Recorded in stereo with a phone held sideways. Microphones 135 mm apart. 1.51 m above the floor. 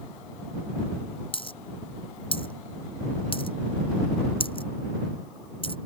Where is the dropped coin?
40° left (ahead or behind).